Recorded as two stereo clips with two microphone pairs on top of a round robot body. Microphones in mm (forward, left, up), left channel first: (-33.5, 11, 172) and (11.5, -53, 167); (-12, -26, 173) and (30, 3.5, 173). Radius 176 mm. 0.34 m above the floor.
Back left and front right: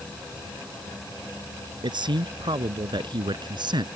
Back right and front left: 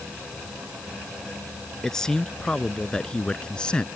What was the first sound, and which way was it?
A man speaking, 65° right.